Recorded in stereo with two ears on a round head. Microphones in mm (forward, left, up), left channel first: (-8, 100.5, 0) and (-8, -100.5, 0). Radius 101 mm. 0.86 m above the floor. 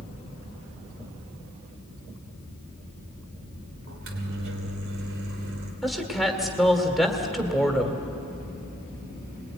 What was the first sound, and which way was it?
A microwave, 60° right (ahead or behind).